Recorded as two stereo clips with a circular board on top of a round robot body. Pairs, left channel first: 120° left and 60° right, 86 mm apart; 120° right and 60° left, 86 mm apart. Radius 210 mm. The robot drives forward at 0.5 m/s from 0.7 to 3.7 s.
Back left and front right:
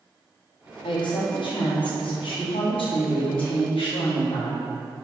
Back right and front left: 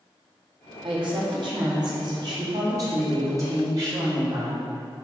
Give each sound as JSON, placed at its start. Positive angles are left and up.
{"t": 0.8, "sound": "a woman speaking", "azimuth_deg": 90, "distance_m": 3.0}